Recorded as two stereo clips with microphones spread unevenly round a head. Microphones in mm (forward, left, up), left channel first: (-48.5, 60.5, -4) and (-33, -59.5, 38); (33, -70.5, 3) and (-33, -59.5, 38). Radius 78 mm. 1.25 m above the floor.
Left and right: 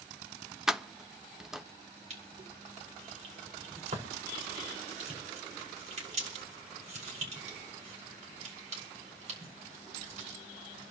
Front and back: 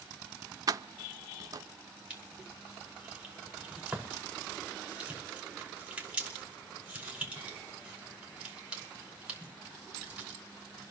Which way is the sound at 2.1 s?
115° right.